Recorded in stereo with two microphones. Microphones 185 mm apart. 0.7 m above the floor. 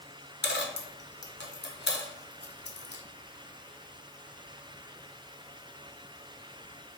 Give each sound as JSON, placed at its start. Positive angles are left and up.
{"t": 0.4, "sound": "a dropped coin", "side_deg": 70, "distance_m": 0.7}